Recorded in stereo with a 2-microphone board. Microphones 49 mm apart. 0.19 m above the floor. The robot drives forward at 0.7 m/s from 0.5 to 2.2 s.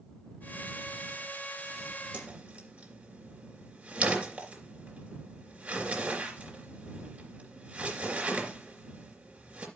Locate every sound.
2.1 s a whoosh: 25° right (ahead or behind), 3 m